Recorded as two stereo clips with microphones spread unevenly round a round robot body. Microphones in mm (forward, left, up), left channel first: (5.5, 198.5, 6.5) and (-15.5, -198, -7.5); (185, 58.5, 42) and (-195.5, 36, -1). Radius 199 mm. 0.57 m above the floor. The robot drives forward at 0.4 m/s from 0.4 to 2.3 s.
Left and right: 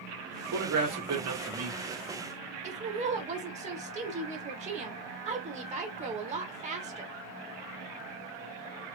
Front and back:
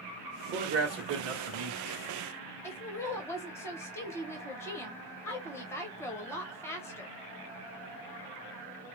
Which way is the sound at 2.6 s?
85° right.